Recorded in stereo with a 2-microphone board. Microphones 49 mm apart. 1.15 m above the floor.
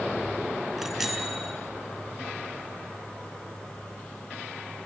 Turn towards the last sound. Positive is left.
turn(degrees=-5)  # may be behind; listen again after turning